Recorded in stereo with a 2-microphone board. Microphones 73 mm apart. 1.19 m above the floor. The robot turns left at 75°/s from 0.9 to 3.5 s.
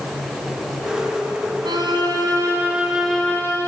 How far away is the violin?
About 5.5 m.